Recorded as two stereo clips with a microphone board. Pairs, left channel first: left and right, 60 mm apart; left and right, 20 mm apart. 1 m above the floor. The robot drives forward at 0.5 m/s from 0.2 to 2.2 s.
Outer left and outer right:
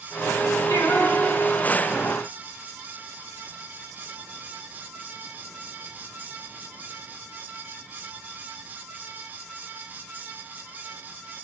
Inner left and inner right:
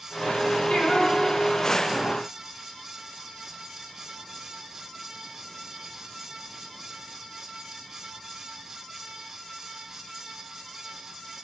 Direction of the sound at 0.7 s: 65° left (ahead or behind).